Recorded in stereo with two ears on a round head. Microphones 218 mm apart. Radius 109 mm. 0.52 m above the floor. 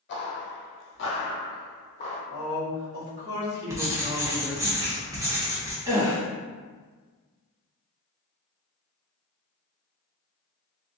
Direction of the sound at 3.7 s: 10° right (ahead or behind).